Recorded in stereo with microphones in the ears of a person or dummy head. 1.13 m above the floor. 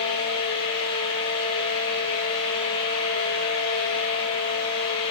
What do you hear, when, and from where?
0.0 s a fan: 30° left (ahead or behind), 3.5 m